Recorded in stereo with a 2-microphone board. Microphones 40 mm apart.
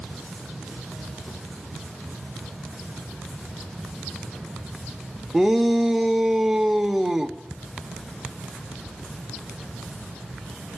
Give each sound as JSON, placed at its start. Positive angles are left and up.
{"t": 5.3, "sound": "a shout", "side_deg": -10, "distance_m": 1.0}